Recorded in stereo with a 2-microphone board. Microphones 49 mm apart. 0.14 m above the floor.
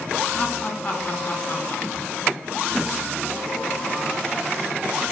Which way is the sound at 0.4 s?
20° left (ahead or behind).